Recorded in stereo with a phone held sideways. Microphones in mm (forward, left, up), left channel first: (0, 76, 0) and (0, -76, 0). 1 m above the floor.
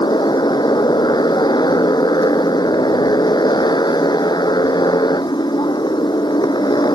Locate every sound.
0.0 s a motorcycle: 30° left (ahead or behind)